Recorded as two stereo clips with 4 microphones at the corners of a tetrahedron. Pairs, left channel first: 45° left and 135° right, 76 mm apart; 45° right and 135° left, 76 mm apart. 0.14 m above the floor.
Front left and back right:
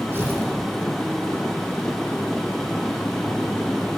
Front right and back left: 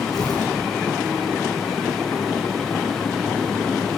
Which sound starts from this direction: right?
Tearing paper, at 0.1 s.